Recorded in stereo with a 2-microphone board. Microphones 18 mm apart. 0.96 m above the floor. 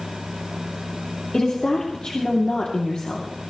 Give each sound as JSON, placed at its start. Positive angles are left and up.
{"t": 1.3, "sound": "a woman speaking", "side_deg": 60, "distance_m": 2.5}